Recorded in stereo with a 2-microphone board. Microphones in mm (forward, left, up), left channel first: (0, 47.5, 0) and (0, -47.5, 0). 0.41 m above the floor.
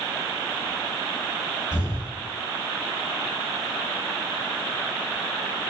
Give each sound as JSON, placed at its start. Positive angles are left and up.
{"t": 1.7, "sound": "an explosion", "side_deg": -10, "distance_m": 1.6}